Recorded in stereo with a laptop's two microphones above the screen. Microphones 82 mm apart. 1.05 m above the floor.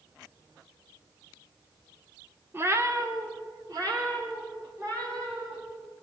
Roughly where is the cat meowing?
Right.